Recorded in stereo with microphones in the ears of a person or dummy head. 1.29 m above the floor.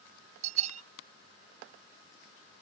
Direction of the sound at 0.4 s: 45° right (ahead or behind).